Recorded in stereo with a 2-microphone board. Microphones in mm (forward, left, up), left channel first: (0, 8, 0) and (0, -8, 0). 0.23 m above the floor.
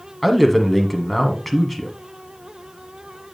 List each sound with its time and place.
0.2 s a man speaking: 10° left (ahead or behind), 1.6 m